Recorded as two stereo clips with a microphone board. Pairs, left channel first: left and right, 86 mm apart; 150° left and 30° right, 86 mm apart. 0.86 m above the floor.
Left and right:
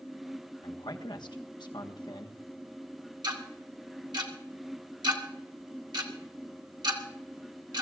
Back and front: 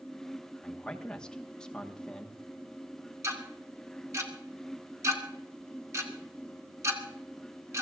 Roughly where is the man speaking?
Left.